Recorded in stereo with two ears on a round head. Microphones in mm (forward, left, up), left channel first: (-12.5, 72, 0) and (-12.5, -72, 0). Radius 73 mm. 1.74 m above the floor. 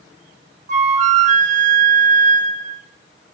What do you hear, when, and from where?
0.7 s a flute: 45° right (ahead or behind), 1.5 m